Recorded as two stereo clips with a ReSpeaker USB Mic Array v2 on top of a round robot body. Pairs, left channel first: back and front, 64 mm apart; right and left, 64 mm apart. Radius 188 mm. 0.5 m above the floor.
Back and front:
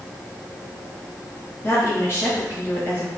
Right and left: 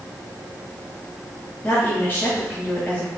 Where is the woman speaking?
145° right, 1.5 m.